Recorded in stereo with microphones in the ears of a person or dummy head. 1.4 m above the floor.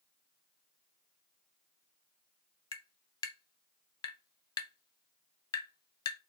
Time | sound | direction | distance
2.7 | tapping | 25° left (ahead or behind) | 0.8 m